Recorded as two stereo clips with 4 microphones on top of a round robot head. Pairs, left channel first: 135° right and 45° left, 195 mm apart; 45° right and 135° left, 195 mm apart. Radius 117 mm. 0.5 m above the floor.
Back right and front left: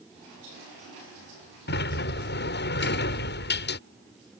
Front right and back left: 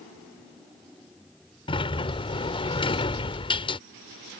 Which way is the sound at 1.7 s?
110° right.